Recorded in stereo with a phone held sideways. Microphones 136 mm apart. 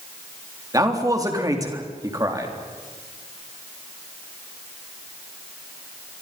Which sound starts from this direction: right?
A man speaking, at 0.7 s.